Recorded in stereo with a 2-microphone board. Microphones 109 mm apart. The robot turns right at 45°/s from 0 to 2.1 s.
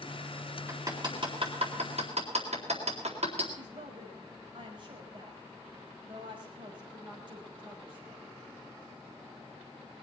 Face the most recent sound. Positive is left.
turn(degrees=-45)  # may be behind; listen again after turning